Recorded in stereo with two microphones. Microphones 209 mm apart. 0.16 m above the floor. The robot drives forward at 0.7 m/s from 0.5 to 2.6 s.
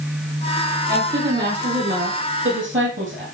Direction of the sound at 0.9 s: 55° right (ahead or behind).